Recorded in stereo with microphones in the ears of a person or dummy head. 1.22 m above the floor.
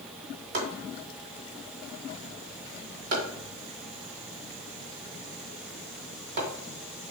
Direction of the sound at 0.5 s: 55° right (ahead or behind).